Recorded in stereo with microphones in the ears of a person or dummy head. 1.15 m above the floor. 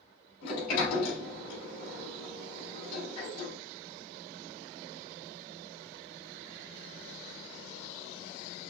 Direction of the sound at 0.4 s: 60° left (ahead or behind).